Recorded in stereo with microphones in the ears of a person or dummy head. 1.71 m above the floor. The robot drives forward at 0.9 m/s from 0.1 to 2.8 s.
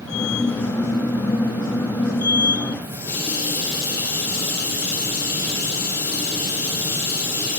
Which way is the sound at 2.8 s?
15° left (ahead or behind).